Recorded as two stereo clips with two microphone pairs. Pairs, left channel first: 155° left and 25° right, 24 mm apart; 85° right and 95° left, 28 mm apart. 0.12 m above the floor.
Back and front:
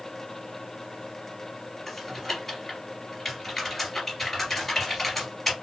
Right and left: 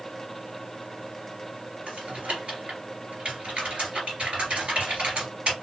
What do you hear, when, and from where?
1.9 s typing on a keyboard: 75° left, 2.5 m